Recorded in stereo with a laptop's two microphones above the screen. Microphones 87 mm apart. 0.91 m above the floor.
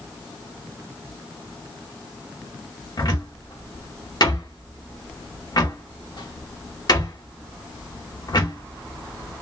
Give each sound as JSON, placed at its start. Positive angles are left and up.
{"t": 3.0, "sound": "a cupboard door", "side_deg": 55, "distance_m": 1.3}